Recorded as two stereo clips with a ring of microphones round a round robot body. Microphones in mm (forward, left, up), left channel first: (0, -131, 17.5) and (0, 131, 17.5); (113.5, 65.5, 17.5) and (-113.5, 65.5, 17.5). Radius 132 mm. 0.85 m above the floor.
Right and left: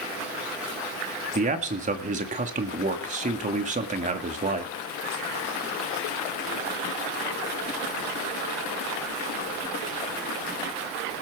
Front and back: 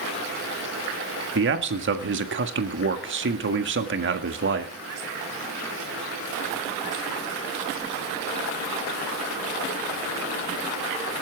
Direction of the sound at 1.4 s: 150° left.